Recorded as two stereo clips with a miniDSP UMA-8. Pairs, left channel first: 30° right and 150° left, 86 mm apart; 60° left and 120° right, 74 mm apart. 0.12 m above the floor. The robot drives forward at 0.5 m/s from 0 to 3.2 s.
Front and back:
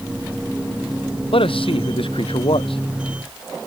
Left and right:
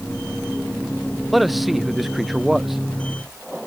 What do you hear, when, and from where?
1.3 s a man speaking: 30° right; by 2.8 s 35° right